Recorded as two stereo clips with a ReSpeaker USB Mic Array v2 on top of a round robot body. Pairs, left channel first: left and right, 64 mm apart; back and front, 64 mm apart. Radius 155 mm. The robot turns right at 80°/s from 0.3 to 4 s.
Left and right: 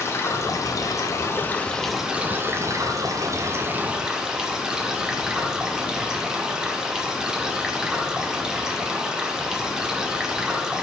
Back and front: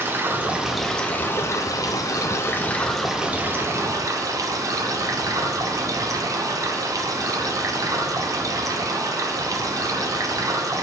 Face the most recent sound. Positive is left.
turn(degrees=-10)